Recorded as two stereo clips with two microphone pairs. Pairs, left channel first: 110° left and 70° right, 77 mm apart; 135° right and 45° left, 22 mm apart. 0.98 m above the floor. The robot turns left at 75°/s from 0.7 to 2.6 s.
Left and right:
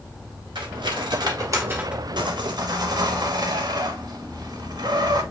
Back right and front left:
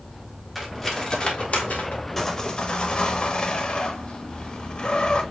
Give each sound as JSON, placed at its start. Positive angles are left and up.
{"t": 0.6, "sound": "cutlery clinking", "azimuth_deg": -50, "distance_m": 1.3}
{"t": 2.2, "sound": "sawing", "azimuth_deg": -65, "distance_m": 1.1}